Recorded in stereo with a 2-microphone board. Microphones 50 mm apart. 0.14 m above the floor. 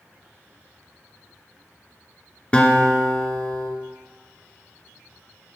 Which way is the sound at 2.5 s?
25° left (ahead or behind).